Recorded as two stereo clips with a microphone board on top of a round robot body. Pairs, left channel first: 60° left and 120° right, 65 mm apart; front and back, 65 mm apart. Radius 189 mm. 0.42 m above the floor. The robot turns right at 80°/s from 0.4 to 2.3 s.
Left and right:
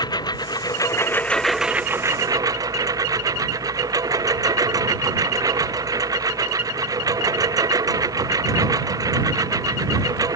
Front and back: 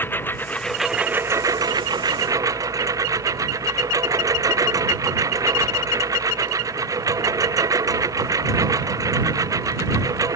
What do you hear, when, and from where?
0.0 s a lawn mower: 60° left; by 10.4 s 145° right